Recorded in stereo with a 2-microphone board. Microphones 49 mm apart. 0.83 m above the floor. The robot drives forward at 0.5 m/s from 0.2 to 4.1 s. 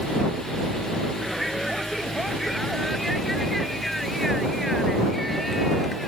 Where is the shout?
Centre (ahead or behind).